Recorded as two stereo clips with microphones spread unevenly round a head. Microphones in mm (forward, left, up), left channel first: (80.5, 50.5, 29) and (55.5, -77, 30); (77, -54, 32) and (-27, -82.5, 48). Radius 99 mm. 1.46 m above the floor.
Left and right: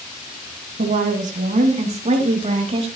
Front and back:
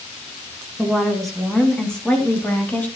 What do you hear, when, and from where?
0.8 s a woman speaking: 80° right, 2.5 m; by 2.9 s 60° right, 3.5 m